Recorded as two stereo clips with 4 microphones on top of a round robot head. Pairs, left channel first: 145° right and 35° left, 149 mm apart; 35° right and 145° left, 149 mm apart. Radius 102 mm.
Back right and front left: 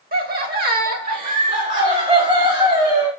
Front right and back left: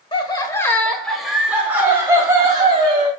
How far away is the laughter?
About 1.3 m.